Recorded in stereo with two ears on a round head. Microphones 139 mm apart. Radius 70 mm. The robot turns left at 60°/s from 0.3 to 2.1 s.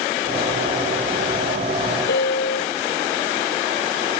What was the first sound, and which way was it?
A piano, 75° left (ahead or behind).